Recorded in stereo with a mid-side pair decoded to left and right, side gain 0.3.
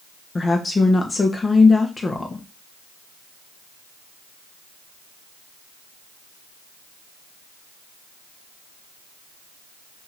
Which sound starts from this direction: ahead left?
A woman speaking, at 0.3 s.